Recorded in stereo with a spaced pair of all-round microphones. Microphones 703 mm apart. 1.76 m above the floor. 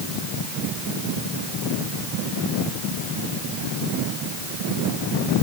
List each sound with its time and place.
Only background noise.